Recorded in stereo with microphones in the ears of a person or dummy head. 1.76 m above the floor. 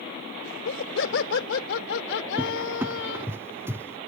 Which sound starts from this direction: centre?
A cupboard door, at 2.4 s.